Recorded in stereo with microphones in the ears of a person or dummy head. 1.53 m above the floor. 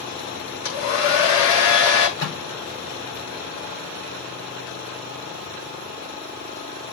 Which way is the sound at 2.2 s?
60° left (ahead or behind).